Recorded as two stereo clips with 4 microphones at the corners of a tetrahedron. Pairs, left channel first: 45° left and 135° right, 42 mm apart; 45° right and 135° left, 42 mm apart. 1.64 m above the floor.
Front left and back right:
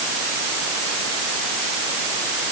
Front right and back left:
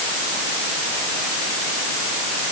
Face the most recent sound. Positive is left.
No sound to turn to.